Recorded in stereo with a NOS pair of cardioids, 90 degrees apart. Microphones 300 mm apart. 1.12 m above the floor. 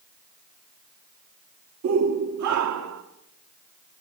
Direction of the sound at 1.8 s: 60° right.